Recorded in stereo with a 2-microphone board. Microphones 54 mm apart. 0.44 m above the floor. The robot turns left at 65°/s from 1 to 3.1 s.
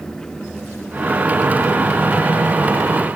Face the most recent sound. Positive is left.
No sound to turn to.